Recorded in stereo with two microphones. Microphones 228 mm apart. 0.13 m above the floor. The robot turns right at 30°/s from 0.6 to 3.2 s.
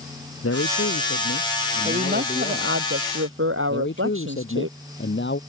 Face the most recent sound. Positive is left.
turn(degrees=55)  # may be behind; listen again after turning